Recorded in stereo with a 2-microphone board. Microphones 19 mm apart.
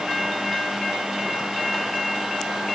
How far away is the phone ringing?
I don't hear a phone ringing.